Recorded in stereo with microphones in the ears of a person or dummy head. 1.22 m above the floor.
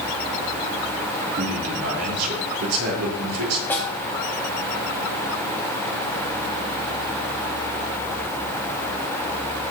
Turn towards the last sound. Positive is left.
turn(degrees=10)  # may be behind; listen again after turning